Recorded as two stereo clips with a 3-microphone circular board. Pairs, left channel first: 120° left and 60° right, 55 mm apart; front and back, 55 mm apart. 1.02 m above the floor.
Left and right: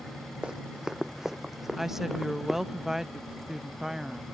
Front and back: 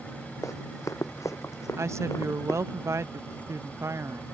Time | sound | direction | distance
0.4 | running footsteps | 15° left | ?
1.8 | a woman speaking | 140° right | ?